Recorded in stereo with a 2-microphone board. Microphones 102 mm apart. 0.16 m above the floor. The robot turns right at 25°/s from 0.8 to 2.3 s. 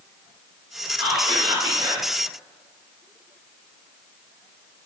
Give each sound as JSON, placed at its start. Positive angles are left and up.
{"t": 1.0, "sound": "whispering", "side_deg": -35, "distance_m": 1.7}